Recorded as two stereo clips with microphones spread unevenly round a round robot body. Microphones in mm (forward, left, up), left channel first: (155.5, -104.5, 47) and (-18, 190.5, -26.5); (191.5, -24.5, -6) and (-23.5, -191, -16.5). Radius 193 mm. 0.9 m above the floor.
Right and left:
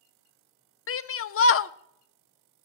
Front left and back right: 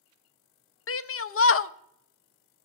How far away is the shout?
About 0.7 m.